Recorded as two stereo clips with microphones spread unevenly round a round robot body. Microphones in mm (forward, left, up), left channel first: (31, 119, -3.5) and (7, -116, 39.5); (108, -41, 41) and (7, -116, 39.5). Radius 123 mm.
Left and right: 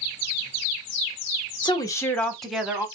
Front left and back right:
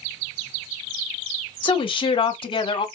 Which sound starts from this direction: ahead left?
A woman speaking, at 1.6 s.